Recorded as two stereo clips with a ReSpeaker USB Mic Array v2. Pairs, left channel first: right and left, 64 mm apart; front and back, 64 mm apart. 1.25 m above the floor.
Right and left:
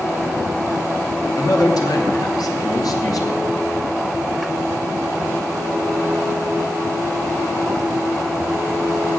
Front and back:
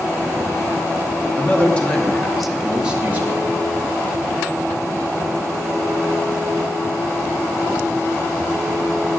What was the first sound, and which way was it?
A man speaking, 60° right.